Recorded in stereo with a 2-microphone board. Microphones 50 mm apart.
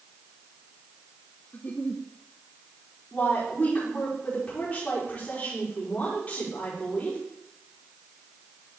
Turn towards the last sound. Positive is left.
turn(degrees=25)  # may be behind; listen again after turning